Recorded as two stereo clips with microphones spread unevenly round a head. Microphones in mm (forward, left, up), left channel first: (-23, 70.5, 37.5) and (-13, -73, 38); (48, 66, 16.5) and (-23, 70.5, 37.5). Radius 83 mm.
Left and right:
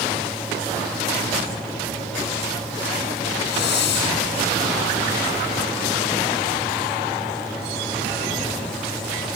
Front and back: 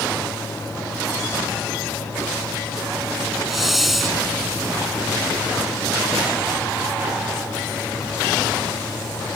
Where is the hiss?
90° left.